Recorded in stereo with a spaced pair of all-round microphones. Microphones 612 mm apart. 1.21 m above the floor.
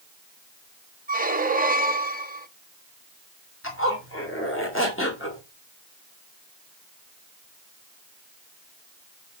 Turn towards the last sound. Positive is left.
turn(degrees=20)  # may be behind; listen again after turning